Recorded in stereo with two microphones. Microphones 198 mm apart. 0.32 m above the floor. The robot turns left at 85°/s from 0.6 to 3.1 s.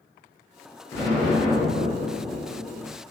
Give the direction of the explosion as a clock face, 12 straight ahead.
11 o'clock.